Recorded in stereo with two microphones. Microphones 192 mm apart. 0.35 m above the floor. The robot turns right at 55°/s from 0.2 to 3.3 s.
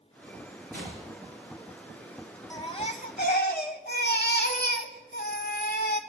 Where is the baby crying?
20° left, 1.2 m; by 6.0 s 65° left, 1.2 m.